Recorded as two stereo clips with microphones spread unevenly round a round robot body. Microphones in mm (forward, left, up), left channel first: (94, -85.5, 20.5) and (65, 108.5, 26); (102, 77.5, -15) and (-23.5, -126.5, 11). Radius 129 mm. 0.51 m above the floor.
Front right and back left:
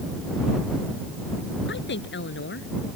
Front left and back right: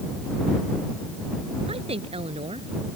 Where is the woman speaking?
55° right.